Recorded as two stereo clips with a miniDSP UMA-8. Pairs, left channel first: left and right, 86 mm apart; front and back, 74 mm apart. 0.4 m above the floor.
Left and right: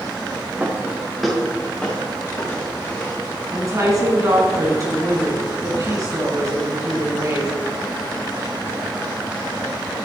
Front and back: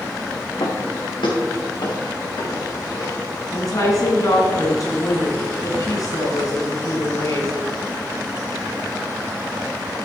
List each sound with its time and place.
0.6 s footsteps: 20° right, 2.5 m; by 3.2 s 40° left, 5 m
3.5 s a woman speaking: 40° right, 3.5 m